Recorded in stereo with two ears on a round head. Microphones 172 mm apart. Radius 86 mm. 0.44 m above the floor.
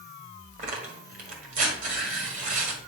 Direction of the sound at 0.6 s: 45° right (ahead or behind).